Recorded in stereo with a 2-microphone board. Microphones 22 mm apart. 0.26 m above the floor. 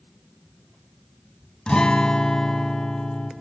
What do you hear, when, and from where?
1.7 s a guitar: 50° left (ahead or behind), 0.6 m